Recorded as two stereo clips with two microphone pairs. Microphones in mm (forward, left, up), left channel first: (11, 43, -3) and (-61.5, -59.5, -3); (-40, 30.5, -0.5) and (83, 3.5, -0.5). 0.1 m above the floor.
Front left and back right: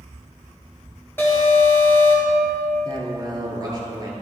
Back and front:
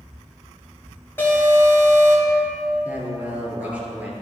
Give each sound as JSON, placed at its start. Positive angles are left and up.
{"t": 1.2, "sound": "an alarm", "azimuth_deg": 110, "distance_m": 2.5}
{"t": 2.9, "sound": "a man speaking", "azimuth_deg": -85, "distance_m": 1.5}